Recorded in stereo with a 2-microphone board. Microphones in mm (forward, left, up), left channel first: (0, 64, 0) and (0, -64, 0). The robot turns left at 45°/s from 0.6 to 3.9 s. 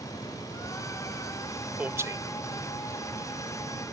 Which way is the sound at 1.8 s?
10° right (ahead or behind).